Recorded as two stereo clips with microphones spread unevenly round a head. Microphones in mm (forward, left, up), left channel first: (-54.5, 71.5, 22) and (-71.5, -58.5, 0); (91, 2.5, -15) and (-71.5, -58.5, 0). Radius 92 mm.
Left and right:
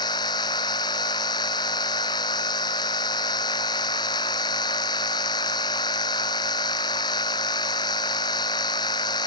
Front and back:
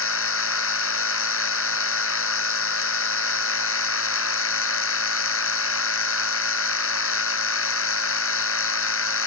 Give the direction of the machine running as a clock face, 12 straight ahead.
12 o'clock.